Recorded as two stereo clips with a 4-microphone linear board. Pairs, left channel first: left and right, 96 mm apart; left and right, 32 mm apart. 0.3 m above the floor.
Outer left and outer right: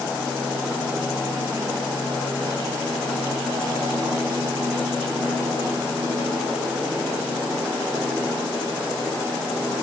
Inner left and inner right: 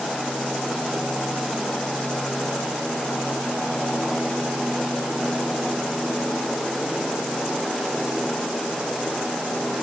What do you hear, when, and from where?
Only background noise.